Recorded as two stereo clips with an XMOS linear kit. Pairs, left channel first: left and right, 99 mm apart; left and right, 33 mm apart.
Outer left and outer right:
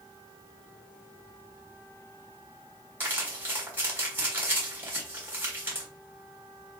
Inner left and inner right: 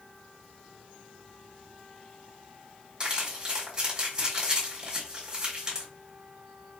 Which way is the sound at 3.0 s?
25° right (ahead or behind).